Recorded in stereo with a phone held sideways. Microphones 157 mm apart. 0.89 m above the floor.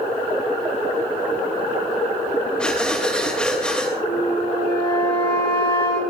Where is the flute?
30° left (ahead or behind), 9 m.